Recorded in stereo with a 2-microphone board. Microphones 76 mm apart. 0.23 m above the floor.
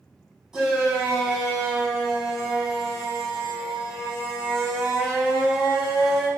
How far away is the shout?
About 1.0 m.